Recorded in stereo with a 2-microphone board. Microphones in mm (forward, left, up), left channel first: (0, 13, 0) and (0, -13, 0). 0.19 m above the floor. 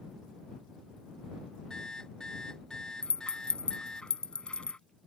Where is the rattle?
45° left (ahead or behind).